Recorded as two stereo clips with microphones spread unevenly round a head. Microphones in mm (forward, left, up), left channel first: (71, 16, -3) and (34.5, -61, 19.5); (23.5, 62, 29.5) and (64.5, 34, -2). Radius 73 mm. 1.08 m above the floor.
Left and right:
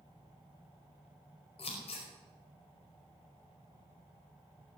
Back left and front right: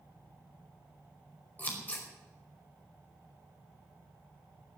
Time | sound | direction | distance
1.6 | scissors | 90° left | 5 m